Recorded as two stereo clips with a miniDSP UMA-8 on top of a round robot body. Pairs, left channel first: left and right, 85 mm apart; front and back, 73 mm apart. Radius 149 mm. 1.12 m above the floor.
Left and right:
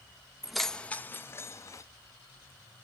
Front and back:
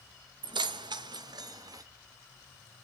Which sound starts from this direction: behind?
Keys jangling, at 0.4 s.